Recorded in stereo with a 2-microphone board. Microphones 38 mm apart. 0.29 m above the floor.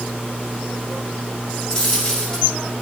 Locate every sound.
1.7 s a dropped coin: 20° left (ahead or behind), 6 m